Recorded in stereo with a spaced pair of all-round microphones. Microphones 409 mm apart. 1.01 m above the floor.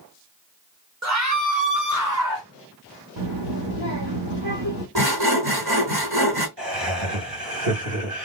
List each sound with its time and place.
1.0 s a scream: 40° right (ahead or behind), 1.5 m; by 2.5 s 50° right (ahead or behind), 2.5 m
3.2 s a child speaking: 90° right, 1.3 m
5.0 s sawing: 65° right (ahead or behind), 2 m
6.6 s laughter: 60° right (ahead or behind), 2.5 m